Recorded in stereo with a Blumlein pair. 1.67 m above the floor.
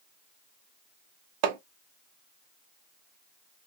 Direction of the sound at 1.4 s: 45° right.